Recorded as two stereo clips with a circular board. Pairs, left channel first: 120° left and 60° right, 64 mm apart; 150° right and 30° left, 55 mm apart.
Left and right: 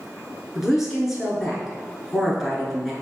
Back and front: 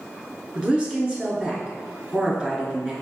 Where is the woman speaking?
10° left, 1.1 m.